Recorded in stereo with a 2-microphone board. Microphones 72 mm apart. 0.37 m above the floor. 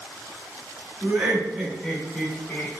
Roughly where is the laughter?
Centre.